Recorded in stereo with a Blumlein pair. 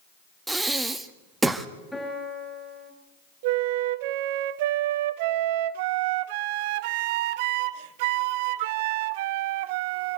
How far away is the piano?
About 7.5 m.